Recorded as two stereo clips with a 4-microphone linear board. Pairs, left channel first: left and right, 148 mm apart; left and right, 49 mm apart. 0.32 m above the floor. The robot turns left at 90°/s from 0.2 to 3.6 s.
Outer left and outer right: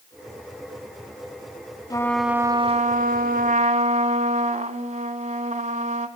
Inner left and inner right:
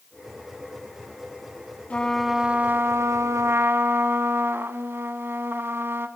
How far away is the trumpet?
About 0.9 m.